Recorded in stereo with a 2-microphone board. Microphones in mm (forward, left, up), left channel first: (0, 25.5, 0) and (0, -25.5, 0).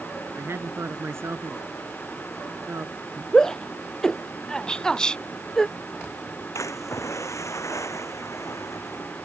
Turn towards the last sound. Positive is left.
turn(degrees=75)  # may be behind; listen again after turning